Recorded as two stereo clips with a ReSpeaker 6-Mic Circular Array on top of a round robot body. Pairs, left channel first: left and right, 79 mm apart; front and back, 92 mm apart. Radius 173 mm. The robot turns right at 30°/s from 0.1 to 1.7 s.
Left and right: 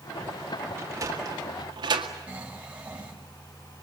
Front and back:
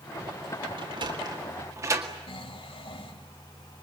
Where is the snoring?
15° right, 3.5 m.